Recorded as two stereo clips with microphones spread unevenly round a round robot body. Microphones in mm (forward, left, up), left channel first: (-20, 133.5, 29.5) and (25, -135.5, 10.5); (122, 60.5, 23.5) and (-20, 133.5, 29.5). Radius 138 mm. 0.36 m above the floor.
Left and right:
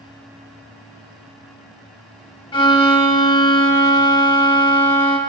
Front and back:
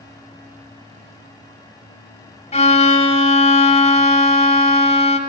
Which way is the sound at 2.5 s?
25° left.